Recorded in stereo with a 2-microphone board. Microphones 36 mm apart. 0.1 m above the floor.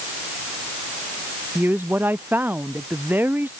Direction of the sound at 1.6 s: 60° right (ahead or behind).